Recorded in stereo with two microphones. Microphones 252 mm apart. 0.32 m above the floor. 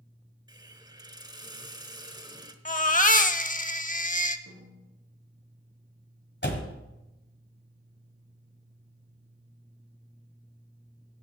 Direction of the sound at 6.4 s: 40° left (ahead or behind).